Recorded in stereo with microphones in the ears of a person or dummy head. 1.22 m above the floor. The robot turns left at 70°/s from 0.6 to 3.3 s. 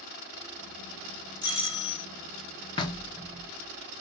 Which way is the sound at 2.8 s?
25° left (ahead or behind).